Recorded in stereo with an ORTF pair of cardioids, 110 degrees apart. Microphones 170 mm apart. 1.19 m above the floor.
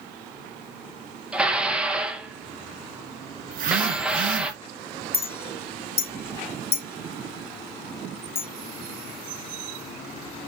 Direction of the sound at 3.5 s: 55° right.